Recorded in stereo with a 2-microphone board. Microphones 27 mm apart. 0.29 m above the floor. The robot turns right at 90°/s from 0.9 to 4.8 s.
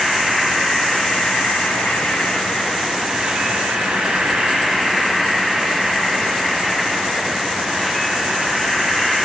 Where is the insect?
5° left, 1.0 m; by 9.2 s 5° right, 1.0 m.